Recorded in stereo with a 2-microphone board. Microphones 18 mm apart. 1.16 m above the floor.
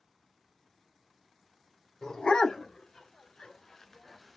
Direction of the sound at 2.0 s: 65° left (ahead or behind).